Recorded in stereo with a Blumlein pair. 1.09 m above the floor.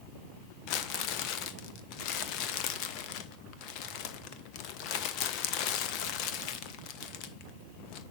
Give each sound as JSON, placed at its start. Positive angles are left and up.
{"t": 0.7, "sound": "crumpling", "azimuth_deg": 40, "distance_m": 1.0}